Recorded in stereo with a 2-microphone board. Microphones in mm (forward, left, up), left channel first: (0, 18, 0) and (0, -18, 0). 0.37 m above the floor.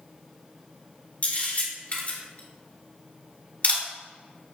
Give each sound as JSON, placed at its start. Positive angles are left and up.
{"t": 1.2, "sound": "a camera shutter", "side_deg": 40, "distance_m": 1.6}